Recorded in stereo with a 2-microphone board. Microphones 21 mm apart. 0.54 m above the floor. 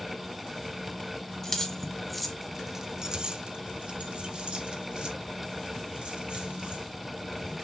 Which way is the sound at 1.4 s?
20° left (ahead or behind).